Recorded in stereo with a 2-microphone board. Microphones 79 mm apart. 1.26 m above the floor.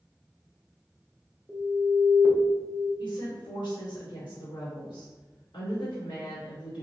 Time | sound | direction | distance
1.5 | an alarm | 10° right (ahead or behind) | 1.4 m
3.0 | a woman speaking | 70° left (ahead or behind) | 1.7 m